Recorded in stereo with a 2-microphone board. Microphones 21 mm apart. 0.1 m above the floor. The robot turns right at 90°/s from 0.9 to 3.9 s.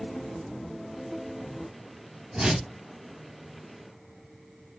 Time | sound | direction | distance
2.3 | a whoosh | 70° right | 2 m